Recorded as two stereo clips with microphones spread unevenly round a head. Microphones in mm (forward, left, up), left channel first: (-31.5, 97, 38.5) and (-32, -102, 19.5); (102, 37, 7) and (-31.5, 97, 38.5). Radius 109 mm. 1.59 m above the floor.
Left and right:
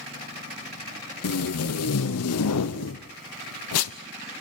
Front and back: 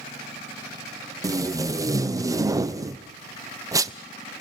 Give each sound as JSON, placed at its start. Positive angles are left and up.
{"t": 1.2, "sound": "tape being pulled", "azimuth_deg": 85, "distance_m": 0.9}